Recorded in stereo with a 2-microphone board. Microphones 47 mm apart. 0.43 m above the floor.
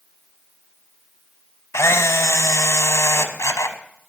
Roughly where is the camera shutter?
Left.